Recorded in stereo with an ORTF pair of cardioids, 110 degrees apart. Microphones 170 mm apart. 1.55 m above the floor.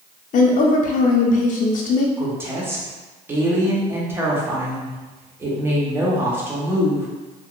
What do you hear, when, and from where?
0.3 s a woman speaking: 50° left, 0.7 m
2.2 s a woman speaking: 15° right, 1.0 m